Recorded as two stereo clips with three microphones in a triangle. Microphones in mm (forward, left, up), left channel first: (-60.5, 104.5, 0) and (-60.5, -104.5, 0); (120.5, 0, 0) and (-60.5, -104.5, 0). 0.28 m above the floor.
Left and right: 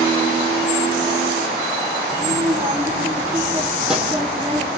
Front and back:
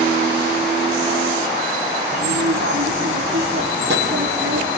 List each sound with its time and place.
2.1 s a child speaking: 165° right, 4.5 m; by 4.7 s straight behind, 6 m